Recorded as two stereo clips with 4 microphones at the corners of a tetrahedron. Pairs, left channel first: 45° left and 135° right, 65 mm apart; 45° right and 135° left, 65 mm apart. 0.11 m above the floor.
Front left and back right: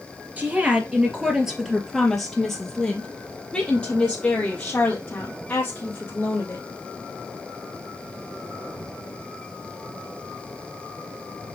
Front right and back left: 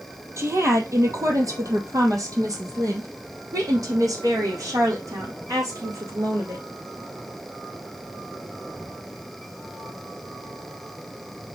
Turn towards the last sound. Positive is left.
turn(degrees=105)